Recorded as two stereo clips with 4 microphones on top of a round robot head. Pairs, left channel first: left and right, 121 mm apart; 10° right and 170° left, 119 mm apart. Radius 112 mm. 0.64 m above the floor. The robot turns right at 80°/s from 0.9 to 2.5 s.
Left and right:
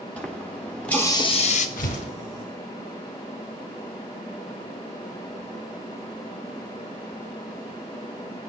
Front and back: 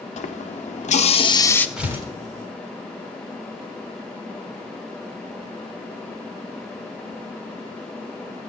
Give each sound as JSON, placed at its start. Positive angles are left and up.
{"t": 0.2, "sound": "a running tap", "azimuth_deg": 10, "distance_m": 1.0}
{"t": 1.8, "sound": "tearing paper", "azimuth_deg": 90, "distance_m": 3.0}